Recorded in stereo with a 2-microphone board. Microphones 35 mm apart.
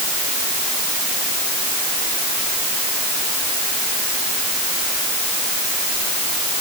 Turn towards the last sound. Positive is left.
No sound to turn to.